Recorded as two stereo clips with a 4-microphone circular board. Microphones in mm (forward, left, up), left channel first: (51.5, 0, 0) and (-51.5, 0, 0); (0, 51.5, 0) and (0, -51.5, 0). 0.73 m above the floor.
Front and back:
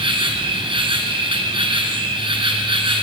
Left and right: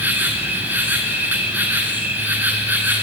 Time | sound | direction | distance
0.0 | an insect | 160° right | 1.2 m